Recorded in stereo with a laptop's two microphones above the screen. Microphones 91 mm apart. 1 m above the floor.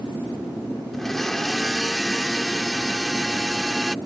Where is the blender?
5° left (ahead or behind).